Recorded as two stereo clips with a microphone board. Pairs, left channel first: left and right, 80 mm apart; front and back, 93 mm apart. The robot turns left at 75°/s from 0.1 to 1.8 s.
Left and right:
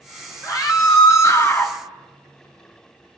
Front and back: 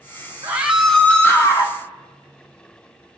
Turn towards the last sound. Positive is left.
turn(degrees=15)